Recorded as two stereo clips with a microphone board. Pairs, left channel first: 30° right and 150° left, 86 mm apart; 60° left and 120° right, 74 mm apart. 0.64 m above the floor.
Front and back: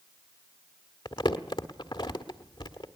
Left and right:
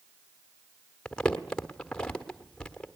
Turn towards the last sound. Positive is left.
turn(degrees=-20)